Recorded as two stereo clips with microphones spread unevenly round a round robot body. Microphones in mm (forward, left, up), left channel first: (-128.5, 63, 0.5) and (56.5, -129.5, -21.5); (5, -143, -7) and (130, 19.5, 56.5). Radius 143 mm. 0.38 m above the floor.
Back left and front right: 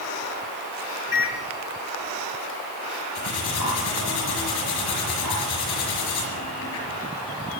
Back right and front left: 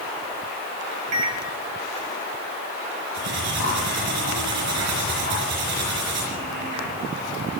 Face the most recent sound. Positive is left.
turn(degrees=90)